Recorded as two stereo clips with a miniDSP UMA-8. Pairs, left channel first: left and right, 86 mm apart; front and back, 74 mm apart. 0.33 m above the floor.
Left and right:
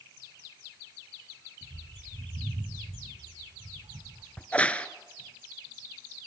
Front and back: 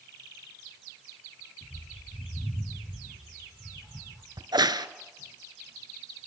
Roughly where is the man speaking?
No man speaking in this recording.